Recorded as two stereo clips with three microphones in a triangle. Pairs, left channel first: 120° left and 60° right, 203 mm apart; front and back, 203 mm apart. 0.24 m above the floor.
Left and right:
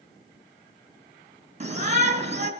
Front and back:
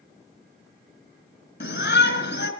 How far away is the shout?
About 3.5 m.